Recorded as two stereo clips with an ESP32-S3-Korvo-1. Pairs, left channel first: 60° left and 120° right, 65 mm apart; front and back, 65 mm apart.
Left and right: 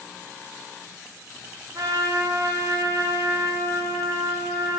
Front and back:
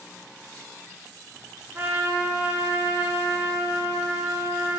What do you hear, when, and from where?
1.8 s a trumpet: 120° right, 0.7 m